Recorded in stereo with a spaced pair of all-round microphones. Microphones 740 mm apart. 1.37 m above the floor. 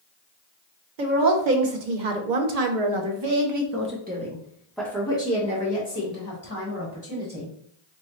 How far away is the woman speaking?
About 1.2 m.